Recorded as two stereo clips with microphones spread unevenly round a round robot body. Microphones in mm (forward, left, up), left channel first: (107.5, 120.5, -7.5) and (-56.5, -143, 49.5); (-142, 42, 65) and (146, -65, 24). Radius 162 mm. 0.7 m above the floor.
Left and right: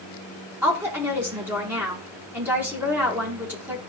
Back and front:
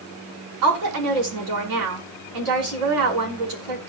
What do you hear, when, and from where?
0.6 s a woman speaking: 35° right, 6.5 m